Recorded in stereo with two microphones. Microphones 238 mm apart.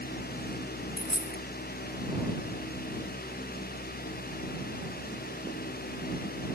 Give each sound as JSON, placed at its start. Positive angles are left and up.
{"t": 1.0, "sound": "a dropped coin", "side_deg": 60}